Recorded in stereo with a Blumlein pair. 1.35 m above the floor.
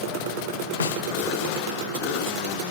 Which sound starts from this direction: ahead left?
A snare drum, at 0.8 s.